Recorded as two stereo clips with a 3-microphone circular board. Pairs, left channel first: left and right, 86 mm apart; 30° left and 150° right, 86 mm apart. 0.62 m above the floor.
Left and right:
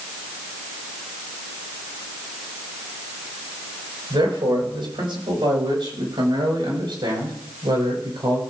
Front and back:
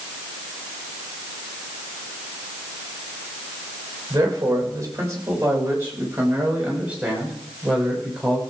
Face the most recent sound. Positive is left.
turn(degrees=-65)